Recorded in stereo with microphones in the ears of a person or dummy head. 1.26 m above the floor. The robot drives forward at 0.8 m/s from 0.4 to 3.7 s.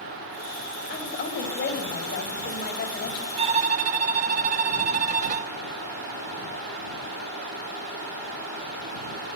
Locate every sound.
0.9 s a woman speaking: 45° left (ahead or behind), 6.5 m; by 3.3 s 55° left (ahead or behind), 5.5 m
3.4 s a violin: 35° right (ahead or behind), 1.1 m; by 5.5 s 40° right (ahead or behind), 1.0 m